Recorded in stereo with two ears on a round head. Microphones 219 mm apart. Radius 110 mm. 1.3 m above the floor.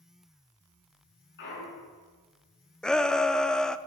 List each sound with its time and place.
1.4 s a clunk: 50° left (ahead or behind), 6.5 m
2.8 s a shout: 5° left (ahead or behind), 0.6 m